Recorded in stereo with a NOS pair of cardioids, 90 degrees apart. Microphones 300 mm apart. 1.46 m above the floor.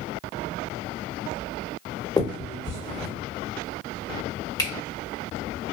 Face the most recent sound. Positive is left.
turn(degrees=15)